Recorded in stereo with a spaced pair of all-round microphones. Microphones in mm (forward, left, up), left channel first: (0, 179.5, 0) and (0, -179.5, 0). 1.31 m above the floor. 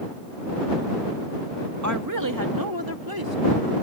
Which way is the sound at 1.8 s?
50° right (ahead or behind).